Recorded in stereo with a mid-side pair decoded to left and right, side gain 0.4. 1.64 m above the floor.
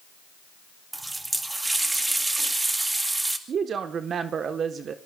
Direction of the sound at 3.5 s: 60° right.